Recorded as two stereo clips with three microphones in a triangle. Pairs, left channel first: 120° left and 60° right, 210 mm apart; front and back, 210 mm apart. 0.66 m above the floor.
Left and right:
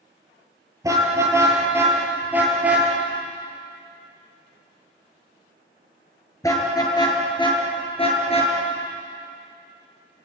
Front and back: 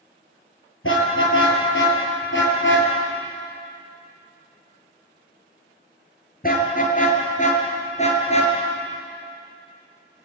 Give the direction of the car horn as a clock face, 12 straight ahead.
11 o'clock.